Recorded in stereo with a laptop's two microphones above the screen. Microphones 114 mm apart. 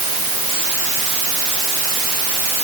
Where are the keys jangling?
No keys jangling in this recording.